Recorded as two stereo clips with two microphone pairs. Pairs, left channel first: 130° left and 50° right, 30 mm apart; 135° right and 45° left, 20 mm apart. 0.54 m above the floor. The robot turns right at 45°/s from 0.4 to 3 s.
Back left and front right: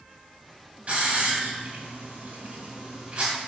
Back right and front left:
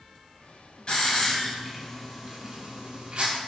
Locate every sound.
0.9 s a hiss: 85° right, 3.5 m; by 3.3 s 10° left, 3.5 m